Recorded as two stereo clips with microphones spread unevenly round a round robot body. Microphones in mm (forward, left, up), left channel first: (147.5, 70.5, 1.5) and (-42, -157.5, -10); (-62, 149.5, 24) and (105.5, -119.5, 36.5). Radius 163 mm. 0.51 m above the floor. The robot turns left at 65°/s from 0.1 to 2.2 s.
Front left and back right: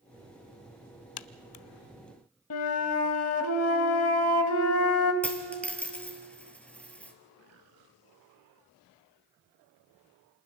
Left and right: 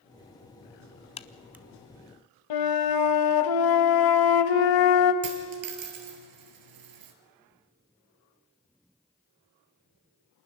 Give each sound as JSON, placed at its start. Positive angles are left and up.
{"t": 1.2, "sound": "a crack", "azimuth_deg": 50, "distance_m": 0.7}
{"t": 2.5, "sound": "a flute", "azimuth_deg": 100, "distance_m": 1.1}
{"t": 5.2, "sound": "a dropped coin", "azimuth_deg": -35, "distance_m": 2.5}